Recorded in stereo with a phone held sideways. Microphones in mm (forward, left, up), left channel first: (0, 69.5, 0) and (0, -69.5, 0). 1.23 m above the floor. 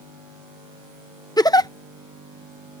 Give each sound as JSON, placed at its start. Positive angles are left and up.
{"t": 1.4, "sound": "a giggle", "side_deg": 25}